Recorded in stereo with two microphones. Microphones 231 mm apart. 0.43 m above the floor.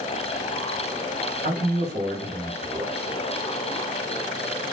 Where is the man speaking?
45° right (ahead or behind), 1.7 m.